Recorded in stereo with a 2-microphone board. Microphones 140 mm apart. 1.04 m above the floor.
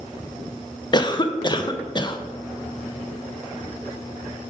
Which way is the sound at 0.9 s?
30° left (ahead or behind).